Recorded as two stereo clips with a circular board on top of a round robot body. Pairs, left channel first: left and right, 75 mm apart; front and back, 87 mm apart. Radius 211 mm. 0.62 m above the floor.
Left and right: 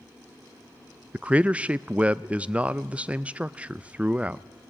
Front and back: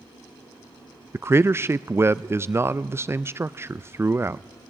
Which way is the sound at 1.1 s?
150° right.